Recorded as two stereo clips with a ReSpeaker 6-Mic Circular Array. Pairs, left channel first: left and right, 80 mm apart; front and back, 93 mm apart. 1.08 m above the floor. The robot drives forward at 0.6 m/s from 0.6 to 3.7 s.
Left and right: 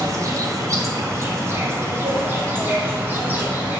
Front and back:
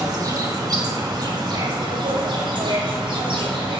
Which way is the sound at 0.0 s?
135° right.